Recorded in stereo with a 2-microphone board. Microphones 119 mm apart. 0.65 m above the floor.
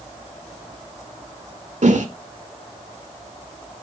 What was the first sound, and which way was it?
A whoosh, 70° right (ahead or behind).